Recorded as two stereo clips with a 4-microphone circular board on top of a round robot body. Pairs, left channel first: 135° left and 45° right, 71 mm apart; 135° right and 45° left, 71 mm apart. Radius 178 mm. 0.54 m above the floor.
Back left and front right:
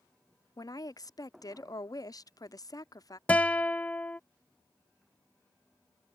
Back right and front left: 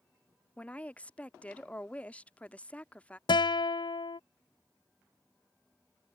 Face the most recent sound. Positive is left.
turn(degrees=-150)